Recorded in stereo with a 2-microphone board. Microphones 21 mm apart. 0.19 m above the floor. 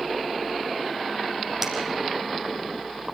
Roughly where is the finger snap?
Centre.